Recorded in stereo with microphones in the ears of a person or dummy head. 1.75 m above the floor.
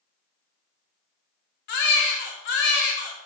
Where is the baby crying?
45° left (ahead or behind), 0.9 m.